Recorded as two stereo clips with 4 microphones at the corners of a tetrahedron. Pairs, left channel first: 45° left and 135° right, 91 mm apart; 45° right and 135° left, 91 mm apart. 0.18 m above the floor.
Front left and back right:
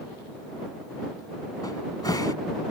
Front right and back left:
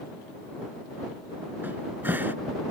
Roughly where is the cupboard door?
Left.